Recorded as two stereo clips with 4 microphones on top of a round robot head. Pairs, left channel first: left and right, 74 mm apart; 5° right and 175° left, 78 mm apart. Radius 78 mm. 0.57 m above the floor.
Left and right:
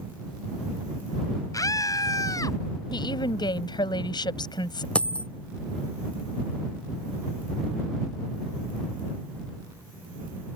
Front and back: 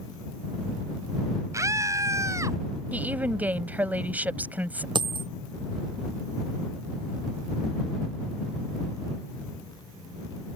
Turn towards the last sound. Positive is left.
turn(degrees=165)